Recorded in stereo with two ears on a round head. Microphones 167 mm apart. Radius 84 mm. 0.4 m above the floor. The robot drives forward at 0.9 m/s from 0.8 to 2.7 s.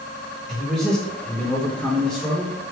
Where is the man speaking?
5° left (ahead or behind), 1.2 m.